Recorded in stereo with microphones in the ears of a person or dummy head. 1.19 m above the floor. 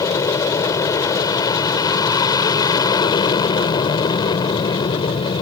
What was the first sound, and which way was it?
An aircraft, 10° left (ahead or behind).